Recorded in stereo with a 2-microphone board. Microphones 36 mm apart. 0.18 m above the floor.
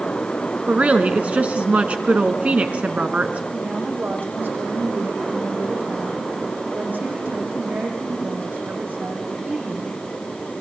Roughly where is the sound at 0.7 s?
Right.